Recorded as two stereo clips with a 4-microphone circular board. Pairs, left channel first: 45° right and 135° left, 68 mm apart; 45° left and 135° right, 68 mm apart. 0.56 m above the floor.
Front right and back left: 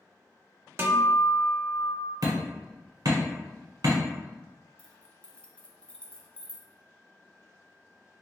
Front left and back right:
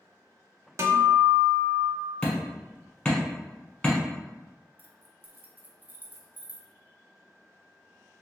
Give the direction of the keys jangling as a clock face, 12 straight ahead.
4 o'clock.